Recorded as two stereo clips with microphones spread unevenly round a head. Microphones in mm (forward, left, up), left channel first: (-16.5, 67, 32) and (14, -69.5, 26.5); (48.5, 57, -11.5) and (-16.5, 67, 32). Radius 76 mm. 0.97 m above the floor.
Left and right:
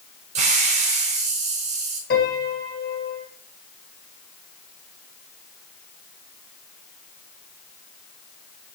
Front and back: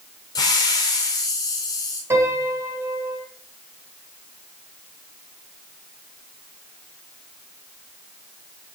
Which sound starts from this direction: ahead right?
A hiss, at 0.3 s.